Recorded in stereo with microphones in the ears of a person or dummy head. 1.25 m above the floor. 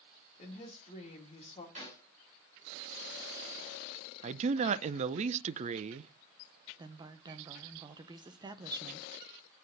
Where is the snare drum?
40° right (ahead or behind), 5 m.